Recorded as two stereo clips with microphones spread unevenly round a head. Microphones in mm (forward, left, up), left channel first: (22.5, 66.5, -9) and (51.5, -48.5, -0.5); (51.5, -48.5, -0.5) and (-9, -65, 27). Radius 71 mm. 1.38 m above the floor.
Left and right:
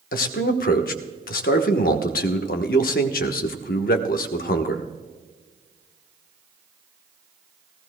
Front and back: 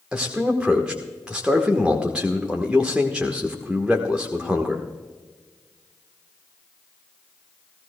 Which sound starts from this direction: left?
A man speaking, at 0.1 s.